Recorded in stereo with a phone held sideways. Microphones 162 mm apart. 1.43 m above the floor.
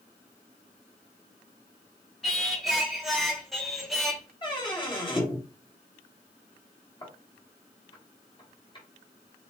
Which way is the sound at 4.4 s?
30° left (ahead or behind).